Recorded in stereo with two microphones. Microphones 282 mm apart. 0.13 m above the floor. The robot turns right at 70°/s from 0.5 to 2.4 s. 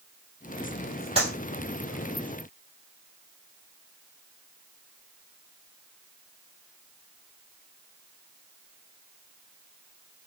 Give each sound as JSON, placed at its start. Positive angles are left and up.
{"t": 1.1, "sound": "a clap", "side_deg": -20, "distance_m": 3.0}